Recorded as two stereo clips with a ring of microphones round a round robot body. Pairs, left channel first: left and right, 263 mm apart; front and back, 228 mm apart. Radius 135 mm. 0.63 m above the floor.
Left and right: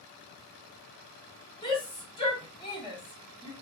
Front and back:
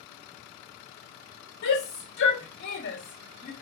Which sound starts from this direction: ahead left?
A shout, at 1.6 s.